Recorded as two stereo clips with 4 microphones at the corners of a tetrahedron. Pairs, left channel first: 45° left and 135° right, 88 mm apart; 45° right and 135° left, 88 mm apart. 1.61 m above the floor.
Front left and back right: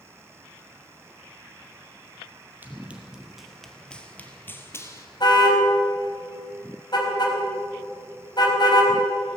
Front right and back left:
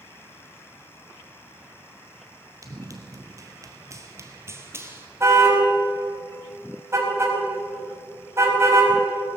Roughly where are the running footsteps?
Behind.